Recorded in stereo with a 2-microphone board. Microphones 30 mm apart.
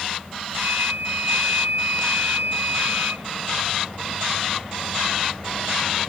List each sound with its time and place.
0.5 s a flute: 85° right